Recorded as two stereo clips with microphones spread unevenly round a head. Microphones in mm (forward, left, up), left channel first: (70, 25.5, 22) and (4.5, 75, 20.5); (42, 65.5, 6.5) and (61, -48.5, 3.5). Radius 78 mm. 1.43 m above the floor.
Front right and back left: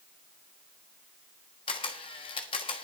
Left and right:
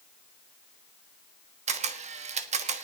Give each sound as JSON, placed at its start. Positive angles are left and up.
{"t": 1.7, "sound": "a camera shutter", "azimuth_deg": -70, "distance_m": 1.3}